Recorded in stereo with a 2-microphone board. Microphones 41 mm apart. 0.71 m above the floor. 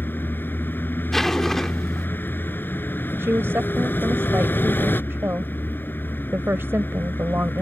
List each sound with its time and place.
0.0 s a vehicle: 55° left (ahead or behind)
1.1 s a zipper: 10° left (ahead or behind)
3.2 s a woman speaking: 70° right (ahead or behind)